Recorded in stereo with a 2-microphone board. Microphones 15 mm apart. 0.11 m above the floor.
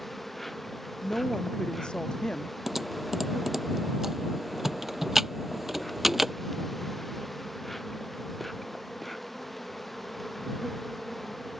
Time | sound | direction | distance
0.0 | an insect | 10° left (ahead or behind) | ?
1.0 | a woman speaking | 75° left (ahead or behind) | ?
2.7 | typing on a keyboard | 20° right (ahead or behind) | ?